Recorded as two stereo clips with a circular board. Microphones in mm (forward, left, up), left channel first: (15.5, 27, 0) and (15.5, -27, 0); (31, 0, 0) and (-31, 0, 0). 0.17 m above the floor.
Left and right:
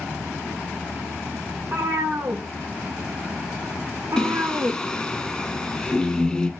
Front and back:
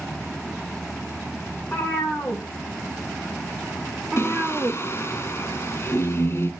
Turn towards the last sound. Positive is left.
turn(degrees=20)